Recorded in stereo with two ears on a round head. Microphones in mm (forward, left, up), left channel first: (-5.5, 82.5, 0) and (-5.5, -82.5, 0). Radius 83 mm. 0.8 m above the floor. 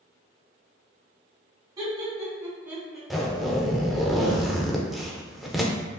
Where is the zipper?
Centre (ahead or behind), 0.5 m.